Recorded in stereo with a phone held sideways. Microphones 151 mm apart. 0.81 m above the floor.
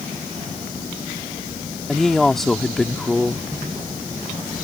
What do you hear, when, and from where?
1.9 s a woman speaking: 5° left (ahead or behind)